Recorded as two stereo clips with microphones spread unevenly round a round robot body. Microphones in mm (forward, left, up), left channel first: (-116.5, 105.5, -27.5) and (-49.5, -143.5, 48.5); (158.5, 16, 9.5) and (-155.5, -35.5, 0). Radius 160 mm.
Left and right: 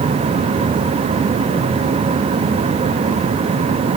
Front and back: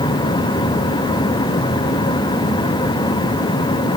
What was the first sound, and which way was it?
Only background noise.